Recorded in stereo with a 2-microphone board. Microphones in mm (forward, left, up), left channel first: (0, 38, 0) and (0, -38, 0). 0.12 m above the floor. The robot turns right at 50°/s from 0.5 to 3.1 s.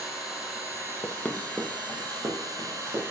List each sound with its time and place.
0.0 s an engine running: 165° right, 4.5 m; by 3.1 s 35° right, 4.5 m
1.0 s running footsteps: 35° left (ahead or behind), 0.8 m; by 3.0 s 85° right, 4 m